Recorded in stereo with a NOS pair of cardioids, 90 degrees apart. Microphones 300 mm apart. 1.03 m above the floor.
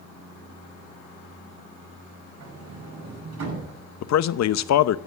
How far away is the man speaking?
About 0.8 m.